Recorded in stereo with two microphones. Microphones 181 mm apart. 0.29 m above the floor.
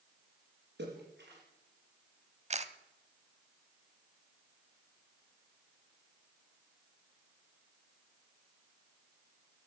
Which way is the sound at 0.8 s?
80° right.